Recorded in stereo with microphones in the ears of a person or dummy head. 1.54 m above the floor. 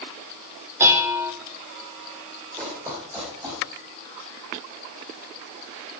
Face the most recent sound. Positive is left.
turn(degrees=-15)  # may be behind; listen again after turning